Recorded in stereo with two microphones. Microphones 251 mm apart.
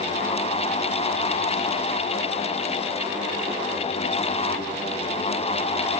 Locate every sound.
Only background noise.